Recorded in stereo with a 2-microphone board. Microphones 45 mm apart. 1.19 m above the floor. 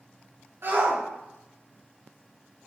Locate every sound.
0.6 s a shout: 60° right (ahead or behind), 3 m